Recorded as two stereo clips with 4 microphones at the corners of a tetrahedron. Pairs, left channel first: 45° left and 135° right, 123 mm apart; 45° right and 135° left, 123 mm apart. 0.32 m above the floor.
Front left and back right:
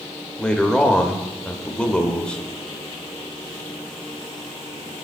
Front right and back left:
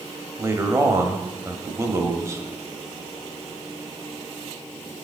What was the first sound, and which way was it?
A man speaking, 120° left.